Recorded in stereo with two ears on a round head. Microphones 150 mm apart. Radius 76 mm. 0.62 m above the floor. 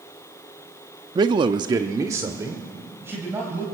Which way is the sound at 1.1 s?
25° right (ahead or behind).